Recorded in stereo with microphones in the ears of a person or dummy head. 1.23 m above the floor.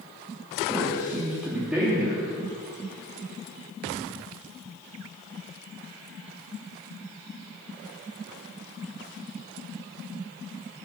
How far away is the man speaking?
About 3 m.